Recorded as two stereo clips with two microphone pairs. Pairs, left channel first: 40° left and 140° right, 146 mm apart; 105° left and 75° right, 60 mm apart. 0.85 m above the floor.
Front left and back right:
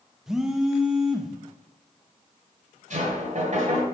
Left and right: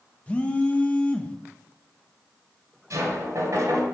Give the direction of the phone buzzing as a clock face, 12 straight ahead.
7 o'clock.